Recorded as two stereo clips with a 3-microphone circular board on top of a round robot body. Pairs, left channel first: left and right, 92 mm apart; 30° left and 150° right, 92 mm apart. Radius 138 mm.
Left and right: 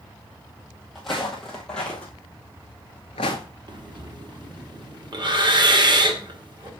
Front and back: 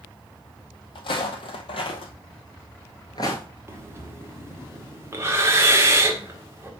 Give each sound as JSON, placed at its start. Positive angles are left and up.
{"t": 0.9, "sound": "footsteps", "azimuth_deg": 0, "distance_m": 1.5}
{"t": 3.7, "sound": "breathing", "azimuth_deg": -95, "distance_m": 2.0}